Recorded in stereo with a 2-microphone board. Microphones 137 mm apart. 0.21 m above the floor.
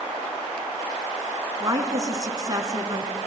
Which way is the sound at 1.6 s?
30° right (ahead or behind).